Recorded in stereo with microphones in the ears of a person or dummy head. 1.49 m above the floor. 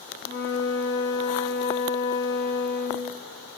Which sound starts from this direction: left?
A flute, at 0.2 s.